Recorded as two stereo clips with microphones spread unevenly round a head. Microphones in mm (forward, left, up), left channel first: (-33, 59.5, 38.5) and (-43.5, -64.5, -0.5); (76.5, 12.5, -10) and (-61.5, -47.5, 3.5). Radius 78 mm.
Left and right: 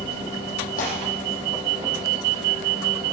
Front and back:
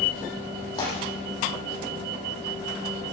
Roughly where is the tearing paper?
Left.